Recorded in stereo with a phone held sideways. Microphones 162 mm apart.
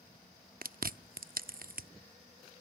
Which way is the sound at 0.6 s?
65° right (ahead or behind).